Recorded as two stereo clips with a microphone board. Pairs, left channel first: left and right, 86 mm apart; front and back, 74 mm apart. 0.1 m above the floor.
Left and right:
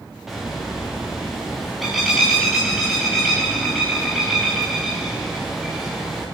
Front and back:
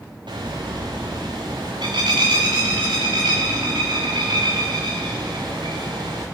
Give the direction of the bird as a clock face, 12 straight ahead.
6 o'clock.